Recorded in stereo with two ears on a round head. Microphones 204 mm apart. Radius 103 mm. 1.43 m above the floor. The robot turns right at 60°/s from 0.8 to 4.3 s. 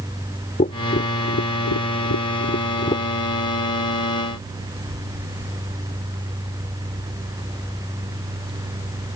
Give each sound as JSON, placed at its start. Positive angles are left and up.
{"t": 0.6, "sound": "tapping", "side_deg": 30}